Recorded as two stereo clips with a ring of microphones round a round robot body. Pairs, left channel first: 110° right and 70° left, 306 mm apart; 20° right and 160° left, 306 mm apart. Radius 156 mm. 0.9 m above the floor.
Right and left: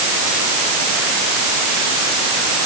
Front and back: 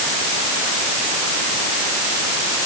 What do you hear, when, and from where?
Only background noise.